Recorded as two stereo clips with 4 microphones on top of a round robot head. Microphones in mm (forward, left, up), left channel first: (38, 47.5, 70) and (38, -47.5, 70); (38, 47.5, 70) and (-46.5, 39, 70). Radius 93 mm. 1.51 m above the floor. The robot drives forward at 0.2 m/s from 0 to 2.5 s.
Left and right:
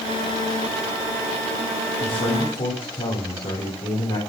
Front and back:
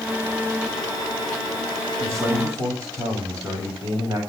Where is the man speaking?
120° left, 7.5 m.